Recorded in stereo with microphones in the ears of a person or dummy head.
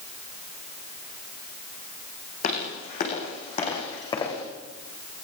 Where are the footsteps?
45° left (ahead or behind), 6.5 m; by 4.4 s 25° left (ahead or behind), 6 m.